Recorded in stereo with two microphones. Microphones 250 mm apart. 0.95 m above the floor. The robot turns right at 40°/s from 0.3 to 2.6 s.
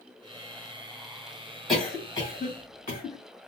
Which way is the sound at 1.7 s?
Centre (ahead or behind).